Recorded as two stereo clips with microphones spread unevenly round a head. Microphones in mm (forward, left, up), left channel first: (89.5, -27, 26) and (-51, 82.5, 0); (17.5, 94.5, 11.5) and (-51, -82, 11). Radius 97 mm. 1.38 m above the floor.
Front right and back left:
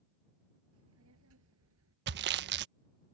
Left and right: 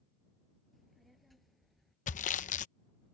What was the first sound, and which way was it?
A child speaking, 160° left.